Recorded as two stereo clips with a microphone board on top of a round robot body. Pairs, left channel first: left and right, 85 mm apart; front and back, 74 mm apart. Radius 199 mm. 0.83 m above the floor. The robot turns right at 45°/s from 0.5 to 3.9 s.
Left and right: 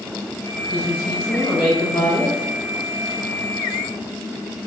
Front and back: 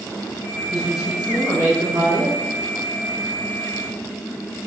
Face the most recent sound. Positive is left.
turn(degrees=-130)